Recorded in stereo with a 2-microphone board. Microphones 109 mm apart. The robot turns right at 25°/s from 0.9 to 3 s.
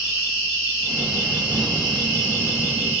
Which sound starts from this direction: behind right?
An insect, at 0.0 s.